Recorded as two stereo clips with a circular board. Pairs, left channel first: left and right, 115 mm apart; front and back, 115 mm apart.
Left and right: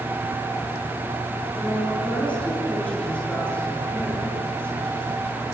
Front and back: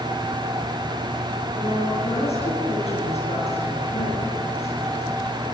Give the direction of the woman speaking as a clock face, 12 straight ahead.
12 o'clock.